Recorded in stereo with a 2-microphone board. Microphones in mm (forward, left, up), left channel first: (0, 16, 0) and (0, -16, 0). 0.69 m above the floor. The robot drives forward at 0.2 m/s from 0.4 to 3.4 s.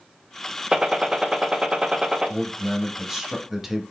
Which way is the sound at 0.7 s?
20° right (ahead or behind).